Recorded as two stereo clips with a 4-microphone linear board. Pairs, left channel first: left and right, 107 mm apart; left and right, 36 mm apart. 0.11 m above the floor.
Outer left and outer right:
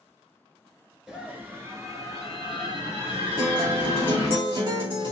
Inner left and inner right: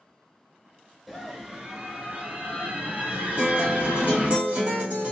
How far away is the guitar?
About 2.5 m.